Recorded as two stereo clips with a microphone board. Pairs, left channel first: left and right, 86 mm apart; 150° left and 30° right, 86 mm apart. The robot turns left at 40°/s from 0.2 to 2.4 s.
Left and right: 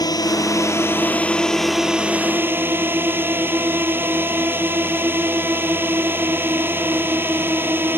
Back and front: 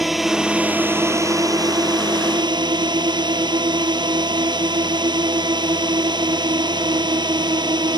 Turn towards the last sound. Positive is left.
turn(degrees=-30)